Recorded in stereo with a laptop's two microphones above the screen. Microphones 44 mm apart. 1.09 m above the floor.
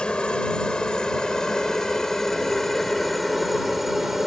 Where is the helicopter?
20° left (ahead or behind); by 4.3 s 10° right (ahead or behind).